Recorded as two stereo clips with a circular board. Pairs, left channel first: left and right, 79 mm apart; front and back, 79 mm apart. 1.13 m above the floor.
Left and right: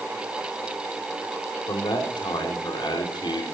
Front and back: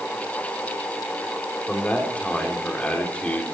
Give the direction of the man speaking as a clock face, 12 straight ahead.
10 o'clock.